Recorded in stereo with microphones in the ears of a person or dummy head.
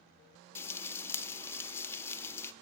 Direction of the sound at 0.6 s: 15° left (ahead or behind).